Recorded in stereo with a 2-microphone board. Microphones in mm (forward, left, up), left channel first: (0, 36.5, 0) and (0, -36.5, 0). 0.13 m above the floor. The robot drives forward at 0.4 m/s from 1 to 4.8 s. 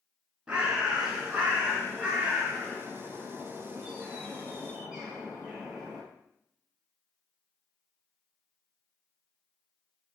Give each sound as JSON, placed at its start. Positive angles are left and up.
{"t": 0.5, "sound": "a bird", "side_deg": -15, "distance_m": 1.2}